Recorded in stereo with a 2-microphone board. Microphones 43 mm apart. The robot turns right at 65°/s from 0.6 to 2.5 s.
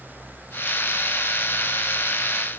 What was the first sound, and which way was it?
Only background noise.